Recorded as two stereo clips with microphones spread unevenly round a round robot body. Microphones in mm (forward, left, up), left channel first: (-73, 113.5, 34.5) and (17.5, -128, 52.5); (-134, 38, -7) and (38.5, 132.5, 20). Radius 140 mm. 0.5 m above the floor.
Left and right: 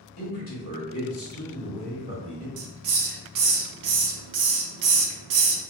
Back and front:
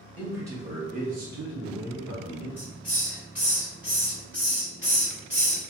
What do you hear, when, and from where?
0.2 s a man speaking: 115° left, 1.1 m; by 2.5 s 10° left, 1.4 m
2.6 s a hiss: 55° right, 0.5 m